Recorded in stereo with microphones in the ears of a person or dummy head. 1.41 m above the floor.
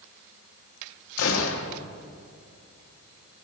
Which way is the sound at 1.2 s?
75° left (ahead or behind).